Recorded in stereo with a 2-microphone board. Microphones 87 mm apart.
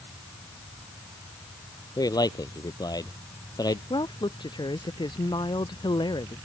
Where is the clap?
No clap in this recording.